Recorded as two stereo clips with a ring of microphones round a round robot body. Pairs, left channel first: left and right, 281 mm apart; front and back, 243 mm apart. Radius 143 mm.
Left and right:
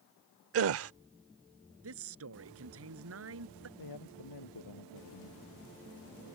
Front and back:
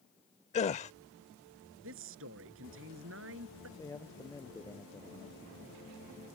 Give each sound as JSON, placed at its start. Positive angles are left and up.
{"t": 0.5, "sound": "a gasp", "azimuth_deg": -60}
{"t": 1.8, "sound": "a man speaking", "azimuth_deg": -130}
{"t": 3.8, "sound": "a man speaking", "azimuth_deg": 75}